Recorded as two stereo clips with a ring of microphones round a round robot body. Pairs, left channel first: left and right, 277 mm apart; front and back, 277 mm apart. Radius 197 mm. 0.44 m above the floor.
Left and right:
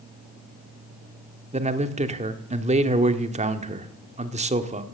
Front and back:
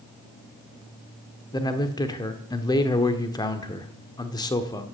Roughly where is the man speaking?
Ahead right.